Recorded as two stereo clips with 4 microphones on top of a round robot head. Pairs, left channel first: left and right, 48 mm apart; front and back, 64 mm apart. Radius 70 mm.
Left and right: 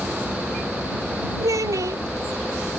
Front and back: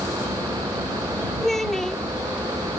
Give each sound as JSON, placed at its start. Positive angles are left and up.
{"t": 0.0, "sound": "a vehicle", "azimuth_deg": 175}
{"t": 1.4, "sound": "a child speaking", "azimuth_deg": -85}